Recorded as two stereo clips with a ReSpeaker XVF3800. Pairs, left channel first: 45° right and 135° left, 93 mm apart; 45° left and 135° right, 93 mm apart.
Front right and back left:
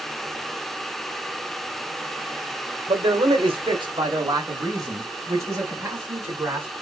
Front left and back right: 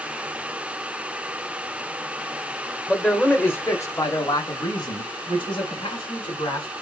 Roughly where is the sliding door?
I don't hear a sliding door.